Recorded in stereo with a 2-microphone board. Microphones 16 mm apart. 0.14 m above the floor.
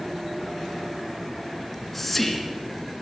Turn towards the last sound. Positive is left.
turn(degrees=5)  # may be behind; listen again after turning